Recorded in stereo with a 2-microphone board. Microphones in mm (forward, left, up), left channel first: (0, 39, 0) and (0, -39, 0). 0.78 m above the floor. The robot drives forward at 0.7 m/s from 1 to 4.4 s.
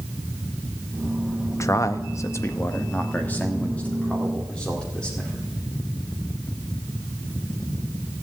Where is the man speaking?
40° left (ahead or behind), 0.7 m; by 5.5 s 15° left (ahead or behind), 1.9 m.